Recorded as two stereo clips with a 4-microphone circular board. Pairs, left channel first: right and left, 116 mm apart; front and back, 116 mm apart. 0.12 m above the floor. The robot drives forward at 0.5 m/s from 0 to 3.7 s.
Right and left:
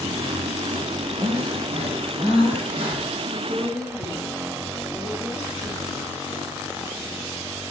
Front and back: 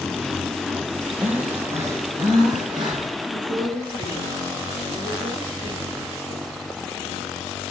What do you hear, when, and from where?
1.2 s breathing: 105° left, 1.6 m; by 3.2 s 135° left, 2 m
3.3 s a woman speaking: 175° left, 2.5 m